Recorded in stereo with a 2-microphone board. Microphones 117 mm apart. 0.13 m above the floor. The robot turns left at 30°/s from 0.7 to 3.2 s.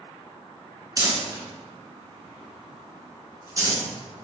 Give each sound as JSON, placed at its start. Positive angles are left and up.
{"t": 1.0, "sound": "crumpling", "side_deg": -30, "distance_m": 0.9}